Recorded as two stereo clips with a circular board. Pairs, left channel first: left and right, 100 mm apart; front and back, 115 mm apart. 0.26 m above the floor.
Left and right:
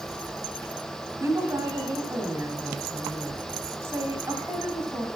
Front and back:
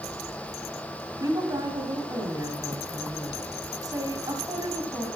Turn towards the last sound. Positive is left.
turn(degrees=-140)